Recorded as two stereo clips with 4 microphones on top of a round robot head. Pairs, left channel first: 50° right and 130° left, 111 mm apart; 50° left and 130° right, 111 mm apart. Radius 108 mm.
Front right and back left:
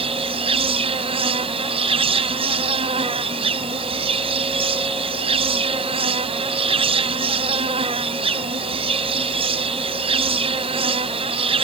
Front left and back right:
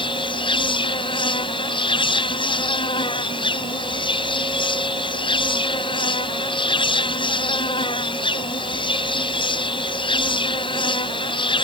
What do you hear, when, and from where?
0.0 s an insect: 95° left